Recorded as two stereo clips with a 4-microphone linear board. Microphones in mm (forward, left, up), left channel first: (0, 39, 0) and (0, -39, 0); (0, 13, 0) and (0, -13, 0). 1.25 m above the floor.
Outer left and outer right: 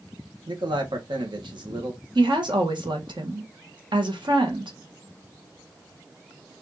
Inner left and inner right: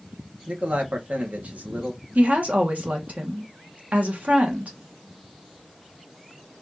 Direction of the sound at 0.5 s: 80° right.